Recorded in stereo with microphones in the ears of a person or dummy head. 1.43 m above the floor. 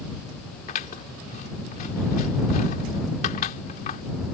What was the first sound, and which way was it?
Scissors, 40° left (ahead or behind).